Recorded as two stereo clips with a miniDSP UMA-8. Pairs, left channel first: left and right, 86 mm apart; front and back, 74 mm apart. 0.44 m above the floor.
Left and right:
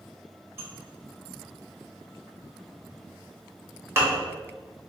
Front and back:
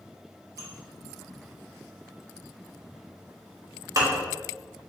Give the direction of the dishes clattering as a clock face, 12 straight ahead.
5 o'clock.